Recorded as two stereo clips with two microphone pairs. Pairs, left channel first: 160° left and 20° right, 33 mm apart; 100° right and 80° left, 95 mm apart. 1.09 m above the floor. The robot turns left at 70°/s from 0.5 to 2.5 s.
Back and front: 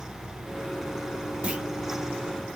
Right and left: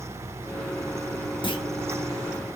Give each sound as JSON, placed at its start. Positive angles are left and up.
{"t": 1.4, "sound": "a clunk", "azimuth_deg": -65, "distance_m": 1.6}